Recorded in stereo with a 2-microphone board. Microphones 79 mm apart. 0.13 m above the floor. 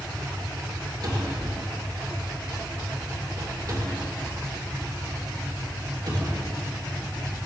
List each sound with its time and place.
1.0 s a cupboard door: 50° right (ahead or behind), 2.5 m